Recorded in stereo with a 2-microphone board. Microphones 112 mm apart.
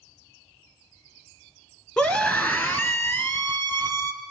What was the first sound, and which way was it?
A scream, 10° left (ahead or behind).